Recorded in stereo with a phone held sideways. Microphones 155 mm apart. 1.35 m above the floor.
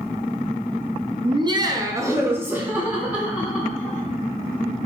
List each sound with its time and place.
1.2 s laughter: 35° right (ahead or behind), 0.6 m; by 4.0 s 5° right (ahead or behind), 2.0 m